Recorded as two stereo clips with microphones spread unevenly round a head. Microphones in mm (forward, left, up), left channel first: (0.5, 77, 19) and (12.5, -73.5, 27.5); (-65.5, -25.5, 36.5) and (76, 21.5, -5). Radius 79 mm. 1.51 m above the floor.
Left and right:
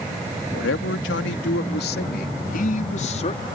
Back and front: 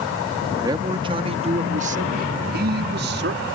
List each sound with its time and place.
0.5 s a man speaking: 95° left; by 3.5 s 40° left